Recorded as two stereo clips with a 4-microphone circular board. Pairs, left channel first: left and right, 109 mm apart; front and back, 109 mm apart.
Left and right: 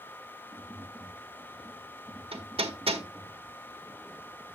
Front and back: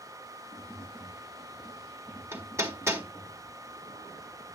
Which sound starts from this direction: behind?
Tapping, at 0.5 s.